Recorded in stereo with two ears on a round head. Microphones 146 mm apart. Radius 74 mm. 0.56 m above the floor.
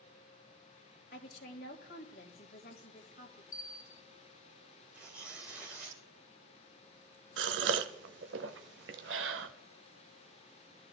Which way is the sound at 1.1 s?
70° left (ahead or behind).